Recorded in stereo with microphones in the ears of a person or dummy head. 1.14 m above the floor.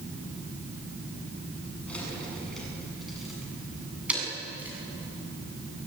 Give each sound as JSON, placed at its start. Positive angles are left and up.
{"t": 1.9, "sound": "keys jangling", "side_deg": 5, "distance_m": 9.0}